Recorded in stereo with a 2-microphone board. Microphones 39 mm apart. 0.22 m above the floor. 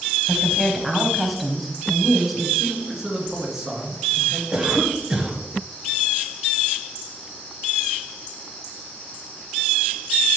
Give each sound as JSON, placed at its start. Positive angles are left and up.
{"t": 0.3, "sound": "a woman speaking", "side_deg": 0, "distance_m": 1.2}
{"t": 2.6, "sound": "a man speaking", "side_deg": -15, "distance_m": 2.5}
{"t": 4.5, "sound": "a cough", "side_deg": -15, "distance_m": 1.2}